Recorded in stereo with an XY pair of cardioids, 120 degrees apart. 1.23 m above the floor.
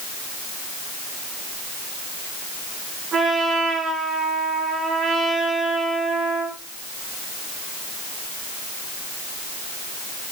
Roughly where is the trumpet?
Ahead right.